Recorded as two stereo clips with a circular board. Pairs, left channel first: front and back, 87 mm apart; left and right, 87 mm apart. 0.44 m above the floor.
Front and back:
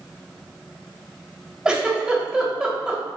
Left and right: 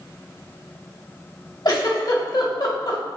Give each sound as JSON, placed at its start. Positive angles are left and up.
{"t": 1.6, "sound": "a giggle", "azimuth_deg": 105, "distance_m": 2.0}